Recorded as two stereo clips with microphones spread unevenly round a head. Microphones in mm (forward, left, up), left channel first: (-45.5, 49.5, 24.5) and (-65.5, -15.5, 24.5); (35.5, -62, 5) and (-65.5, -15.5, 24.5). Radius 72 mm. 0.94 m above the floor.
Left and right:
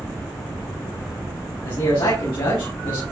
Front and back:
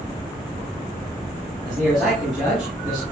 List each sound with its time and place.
1.6 s a man speaking: 65° left, 6 m